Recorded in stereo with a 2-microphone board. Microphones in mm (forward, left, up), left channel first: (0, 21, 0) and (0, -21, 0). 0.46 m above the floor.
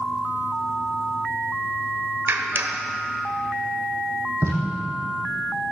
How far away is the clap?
About 1.4 m.